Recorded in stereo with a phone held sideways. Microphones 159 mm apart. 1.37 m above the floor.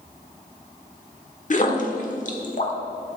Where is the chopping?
I don't hear chopping.